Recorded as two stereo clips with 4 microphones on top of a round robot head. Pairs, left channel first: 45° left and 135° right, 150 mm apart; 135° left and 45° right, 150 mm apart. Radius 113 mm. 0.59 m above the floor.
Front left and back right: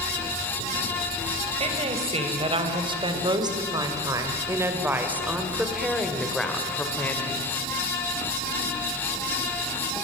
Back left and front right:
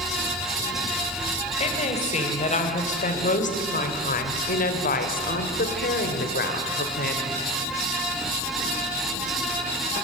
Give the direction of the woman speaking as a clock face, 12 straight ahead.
6 o'clock.